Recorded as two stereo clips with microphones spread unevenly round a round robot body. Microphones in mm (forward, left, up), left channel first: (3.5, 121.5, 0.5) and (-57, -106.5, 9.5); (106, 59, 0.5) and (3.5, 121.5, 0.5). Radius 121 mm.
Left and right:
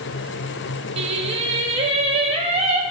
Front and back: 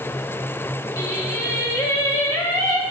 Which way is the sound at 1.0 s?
65° right.